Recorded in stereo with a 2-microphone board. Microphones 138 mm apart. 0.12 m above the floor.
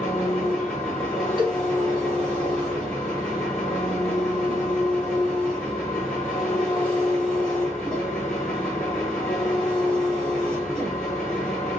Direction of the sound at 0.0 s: 5° left (ahead or behind).